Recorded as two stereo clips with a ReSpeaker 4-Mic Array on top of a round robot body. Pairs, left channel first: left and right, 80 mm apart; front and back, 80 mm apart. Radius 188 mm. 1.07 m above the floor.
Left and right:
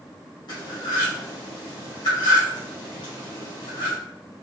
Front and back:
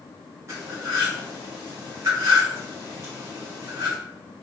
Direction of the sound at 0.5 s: 120° left.